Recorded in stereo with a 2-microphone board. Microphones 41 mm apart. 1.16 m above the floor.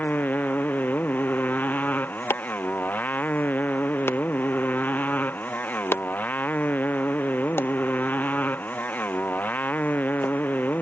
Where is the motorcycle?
45° left (ahead or behind).